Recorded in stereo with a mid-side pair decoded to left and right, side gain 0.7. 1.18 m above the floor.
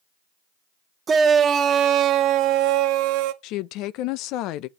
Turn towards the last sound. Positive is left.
turn(degrees=65)